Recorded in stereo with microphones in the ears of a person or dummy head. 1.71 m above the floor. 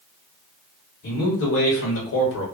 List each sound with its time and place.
1.0 s a man speaking: 55° left (ahead or behind), 1.3 m; by 2.5 s 65° left (ahead or behind), 1.3 m